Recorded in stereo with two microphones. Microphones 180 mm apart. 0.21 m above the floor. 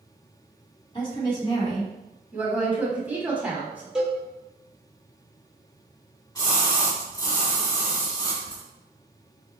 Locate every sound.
0.9 s a woman speaking: 30° left (ahead or behind), 1.7 m
2.3 s a woman speaking: 10° right (ahead or behind), 1.1 m
4.0 s a cowbell: 5° right (ahead or behind), 1.0 m
6.3 s a splash: 20° left (ahead or behind), 1.9 m